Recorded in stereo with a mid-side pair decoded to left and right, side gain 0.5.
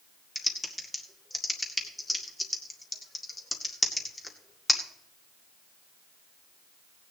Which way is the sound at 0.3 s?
15° left.